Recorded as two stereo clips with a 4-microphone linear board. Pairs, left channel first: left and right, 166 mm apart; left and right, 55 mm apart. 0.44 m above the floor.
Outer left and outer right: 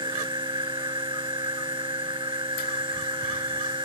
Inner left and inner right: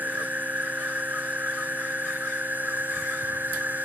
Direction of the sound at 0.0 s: 30° right (ahead or behind).